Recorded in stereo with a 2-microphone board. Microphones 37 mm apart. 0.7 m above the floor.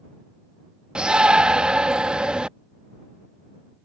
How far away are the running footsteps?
I don't hear running footsteps.